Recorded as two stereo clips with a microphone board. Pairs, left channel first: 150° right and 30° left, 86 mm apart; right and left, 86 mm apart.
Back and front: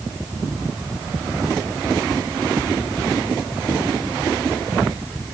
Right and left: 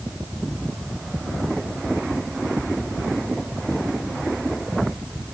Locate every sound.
Only background noise.